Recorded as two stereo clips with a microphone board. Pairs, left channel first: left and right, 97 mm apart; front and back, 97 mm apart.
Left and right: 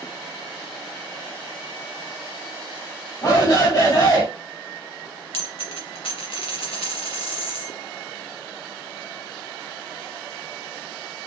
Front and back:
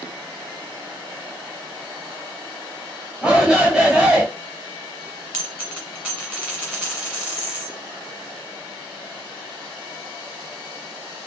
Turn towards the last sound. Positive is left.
turn(degrees=100)